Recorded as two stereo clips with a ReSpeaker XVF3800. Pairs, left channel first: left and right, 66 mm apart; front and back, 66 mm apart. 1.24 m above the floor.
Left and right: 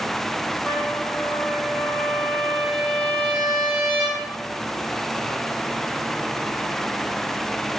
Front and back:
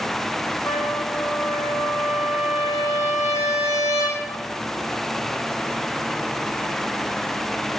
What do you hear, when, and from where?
0.7 s a trumpet: 5° left, 2.5 m